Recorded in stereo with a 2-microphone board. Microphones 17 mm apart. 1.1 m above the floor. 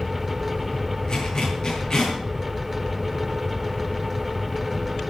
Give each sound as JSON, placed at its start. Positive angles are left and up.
{"t": 1.1, "sound": "a zipper", "side_deg": 45, "distance_m": 8.0}